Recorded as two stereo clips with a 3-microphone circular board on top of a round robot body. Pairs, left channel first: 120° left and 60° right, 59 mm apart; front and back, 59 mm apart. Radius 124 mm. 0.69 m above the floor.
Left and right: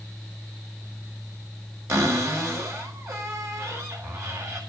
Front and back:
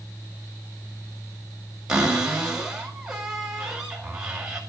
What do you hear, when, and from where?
1.9 s a cupboard door: 100° right, 5 m